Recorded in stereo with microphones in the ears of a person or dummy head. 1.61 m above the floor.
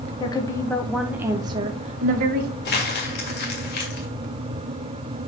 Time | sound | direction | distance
0.2 | a woman speaking | 25° left (ahead or behind) | 1.4 m
2.6 | crumpling | 50° left (ahead or behind) | 2 m